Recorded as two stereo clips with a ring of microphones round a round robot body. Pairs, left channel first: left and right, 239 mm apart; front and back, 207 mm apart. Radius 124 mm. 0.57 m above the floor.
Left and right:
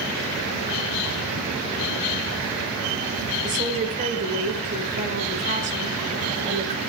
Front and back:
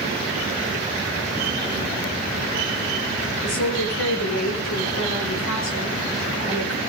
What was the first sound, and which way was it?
A woman speaking, 30° right.